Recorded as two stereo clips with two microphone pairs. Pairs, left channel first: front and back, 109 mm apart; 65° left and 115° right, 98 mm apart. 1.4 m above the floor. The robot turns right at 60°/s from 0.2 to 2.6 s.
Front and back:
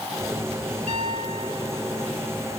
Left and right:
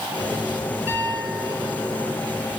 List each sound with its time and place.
0.9 s a piano: 175° left, 4 m; by 2.1 s 110° right, 4 m